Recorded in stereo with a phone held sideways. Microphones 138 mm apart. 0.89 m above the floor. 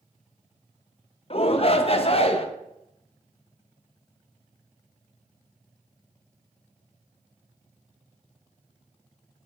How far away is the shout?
About 0.5 m.